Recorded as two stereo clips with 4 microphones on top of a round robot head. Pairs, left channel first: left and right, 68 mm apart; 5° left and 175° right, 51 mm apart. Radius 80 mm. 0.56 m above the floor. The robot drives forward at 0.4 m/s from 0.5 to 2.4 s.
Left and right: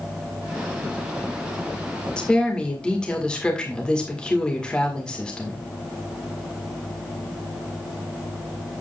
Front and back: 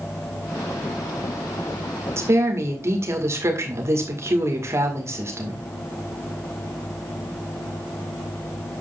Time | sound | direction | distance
2.2 | a woman speaking | 165° left | 1.9 m